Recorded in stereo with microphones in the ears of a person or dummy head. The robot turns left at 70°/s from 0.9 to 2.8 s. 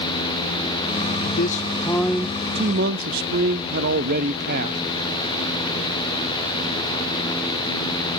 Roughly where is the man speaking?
Ahead left.